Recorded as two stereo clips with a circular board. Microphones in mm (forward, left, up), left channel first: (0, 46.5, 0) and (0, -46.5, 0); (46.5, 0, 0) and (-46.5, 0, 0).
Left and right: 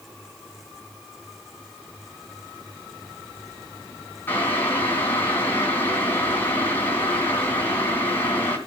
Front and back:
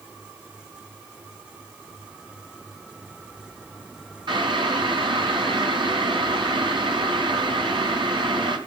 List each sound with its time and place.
4.3 s boiling: 155° left, 3.5 m